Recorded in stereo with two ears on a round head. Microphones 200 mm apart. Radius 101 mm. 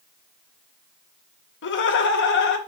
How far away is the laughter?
About 0.6 m.